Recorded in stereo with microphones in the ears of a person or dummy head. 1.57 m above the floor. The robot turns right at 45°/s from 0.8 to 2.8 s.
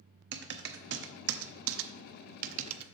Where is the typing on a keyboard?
55° right (ahead or behind), 0.6 m; by 2.9 s 25° right (ahead or behind), 0.6 m.